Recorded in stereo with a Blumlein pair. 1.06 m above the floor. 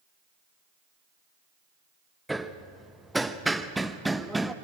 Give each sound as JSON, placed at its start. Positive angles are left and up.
{"t": 2.3, "sound": "hammering", "azimuth_deg": -5, "distance_m": 0.9}